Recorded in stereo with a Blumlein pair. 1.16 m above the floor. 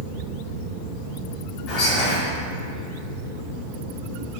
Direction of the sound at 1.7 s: 35° left.